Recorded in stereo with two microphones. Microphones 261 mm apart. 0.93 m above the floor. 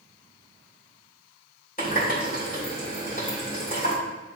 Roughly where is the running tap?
Left.